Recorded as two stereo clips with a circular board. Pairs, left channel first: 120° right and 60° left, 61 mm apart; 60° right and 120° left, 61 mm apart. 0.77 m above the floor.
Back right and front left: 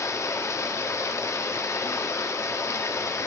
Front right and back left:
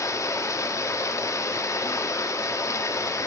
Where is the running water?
85° right, 0.9 m.